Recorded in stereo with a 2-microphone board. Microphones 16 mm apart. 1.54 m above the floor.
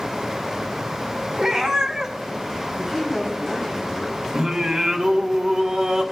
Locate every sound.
1.4 s a cat meowing: 65° right (ahead or behind), 3 m
2.8 s a man speaking: 10° right (ahead or behind), 3 m
4.3 s singing: 55° right (ahead or behind), 1.4 m